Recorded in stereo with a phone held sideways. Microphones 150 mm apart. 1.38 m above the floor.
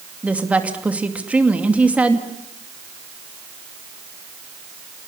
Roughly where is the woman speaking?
Centre.